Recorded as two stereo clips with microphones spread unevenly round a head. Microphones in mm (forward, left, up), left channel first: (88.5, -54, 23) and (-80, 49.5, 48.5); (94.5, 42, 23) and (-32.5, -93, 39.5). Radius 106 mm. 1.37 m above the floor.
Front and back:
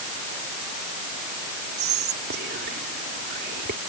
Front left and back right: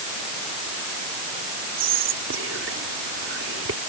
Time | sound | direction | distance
1.8 | whispering | 170° right | ?